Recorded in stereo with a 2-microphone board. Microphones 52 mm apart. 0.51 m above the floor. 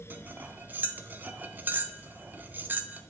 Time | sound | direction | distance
0.1 | cutlery clinking | 35° right (ahead or behind) | 0.5 m